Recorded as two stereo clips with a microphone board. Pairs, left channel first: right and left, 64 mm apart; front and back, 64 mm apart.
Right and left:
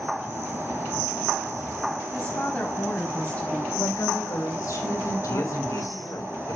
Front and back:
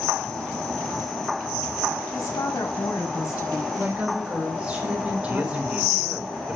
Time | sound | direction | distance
2.1 | a woman speaking | 20° right | 5.5 m
3.8 | a woman speaking | 110° right | 4.5 m
5.3 | a man speaking | 110° right | 4 m